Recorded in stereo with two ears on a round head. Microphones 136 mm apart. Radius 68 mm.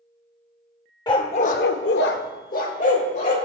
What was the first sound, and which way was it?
A dog barking, 30° left (ahead or behind).